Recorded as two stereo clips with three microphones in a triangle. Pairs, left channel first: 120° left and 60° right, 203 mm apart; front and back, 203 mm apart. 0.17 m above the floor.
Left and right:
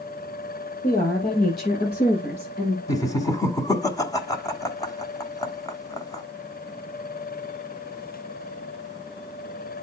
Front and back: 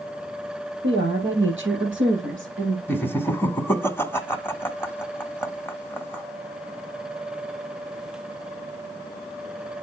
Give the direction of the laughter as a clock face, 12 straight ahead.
10 o'clock.